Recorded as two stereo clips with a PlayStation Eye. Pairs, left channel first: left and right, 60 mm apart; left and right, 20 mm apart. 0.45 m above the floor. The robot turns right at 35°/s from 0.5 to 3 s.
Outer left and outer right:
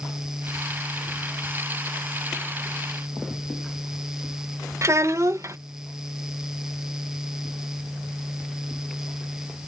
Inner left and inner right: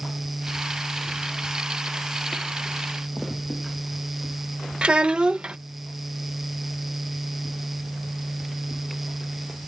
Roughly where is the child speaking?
Right.